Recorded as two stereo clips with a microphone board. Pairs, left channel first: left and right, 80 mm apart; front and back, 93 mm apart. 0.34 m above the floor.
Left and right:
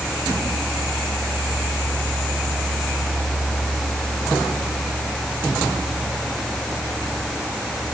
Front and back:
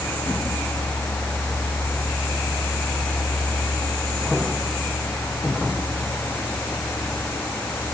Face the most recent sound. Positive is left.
No sound to turn to.